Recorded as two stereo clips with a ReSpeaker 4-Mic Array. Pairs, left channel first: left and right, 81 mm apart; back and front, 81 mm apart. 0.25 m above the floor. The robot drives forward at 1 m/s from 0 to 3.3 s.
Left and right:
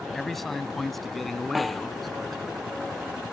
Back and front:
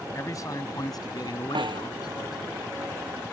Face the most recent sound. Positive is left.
turn(degrees=0)